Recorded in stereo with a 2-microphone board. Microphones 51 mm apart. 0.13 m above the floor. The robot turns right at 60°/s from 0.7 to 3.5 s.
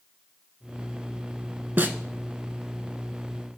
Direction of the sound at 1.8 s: 40° right (ahead or behind).